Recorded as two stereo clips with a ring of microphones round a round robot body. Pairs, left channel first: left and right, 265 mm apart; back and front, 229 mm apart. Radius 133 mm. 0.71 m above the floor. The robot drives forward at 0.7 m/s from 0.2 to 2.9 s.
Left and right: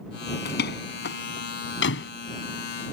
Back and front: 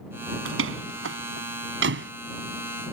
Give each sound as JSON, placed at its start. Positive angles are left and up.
{"t": 0.5, "sound": "a door slam", "azimuth_deg": 35}